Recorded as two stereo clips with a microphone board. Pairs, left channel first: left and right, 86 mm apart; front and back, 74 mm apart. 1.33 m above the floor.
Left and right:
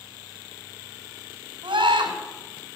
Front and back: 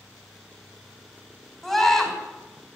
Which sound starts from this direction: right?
A scream, at 1.6 s.